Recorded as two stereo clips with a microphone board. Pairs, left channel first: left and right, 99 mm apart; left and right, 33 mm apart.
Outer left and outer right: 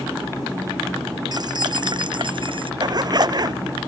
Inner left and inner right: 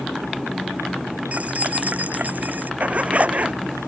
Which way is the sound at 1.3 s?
45° right (ahead or behind).